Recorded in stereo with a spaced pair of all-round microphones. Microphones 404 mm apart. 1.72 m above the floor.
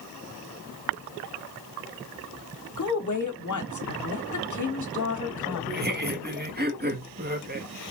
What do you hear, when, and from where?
2.8 s a woman speaking: 45° left (ahead or behind), 0.9 m
5.7 s laughter: 25° right (ahead or behind), 0.9 m